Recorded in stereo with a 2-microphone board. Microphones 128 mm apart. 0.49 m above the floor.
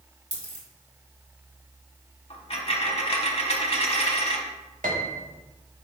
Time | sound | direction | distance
0.3 | a dropped coin | 55° left (ahead or behind) | 1.6 m
2.3 | a dropped coin | 50° left (ahead or behind) | 0.9 m
4.8 | a piano | 80° right | 0.8 m